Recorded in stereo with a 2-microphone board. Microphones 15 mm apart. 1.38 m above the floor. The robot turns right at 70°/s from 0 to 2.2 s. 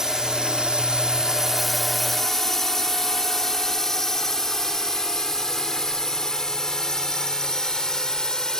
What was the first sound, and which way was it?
A drone, 40° right (ahead or behind).